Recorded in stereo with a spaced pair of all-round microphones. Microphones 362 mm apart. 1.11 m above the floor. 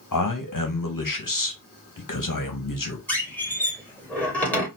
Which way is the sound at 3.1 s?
5° left (ahead or behind).